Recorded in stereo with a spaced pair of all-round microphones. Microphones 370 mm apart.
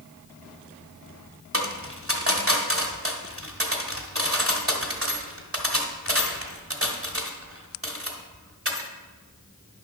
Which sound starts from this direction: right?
A dropped coin, at 1.5 s.